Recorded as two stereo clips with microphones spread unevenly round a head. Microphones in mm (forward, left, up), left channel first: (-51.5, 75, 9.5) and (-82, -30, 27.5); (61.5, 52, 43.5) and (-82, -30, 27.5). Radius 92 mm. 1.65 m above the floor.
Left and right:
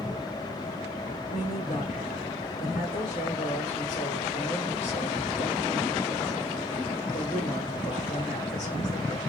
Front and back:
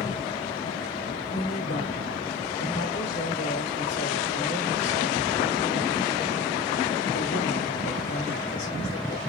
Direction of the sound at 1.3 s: 35° left.